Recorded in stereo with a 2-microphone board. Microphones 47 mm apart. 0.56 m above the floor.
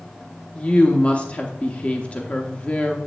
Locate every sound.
0.6 s a woman speaking: 30° left (ahead or behind), 0.8 m